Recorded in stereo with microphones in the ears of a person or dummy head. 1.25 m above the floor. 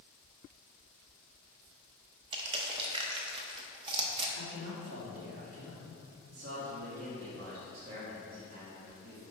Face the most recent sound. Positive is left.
turn(degrees=-90)